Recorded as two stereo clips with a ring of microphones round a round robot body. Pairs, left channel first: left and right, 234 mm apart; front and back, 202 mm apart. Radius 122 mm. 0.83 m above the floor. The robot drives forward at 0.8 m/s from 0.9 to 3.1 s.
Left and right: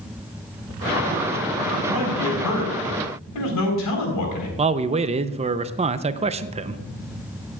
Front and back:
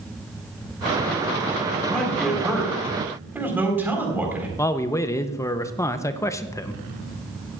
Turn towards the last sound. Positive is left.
turn(degrees=-60)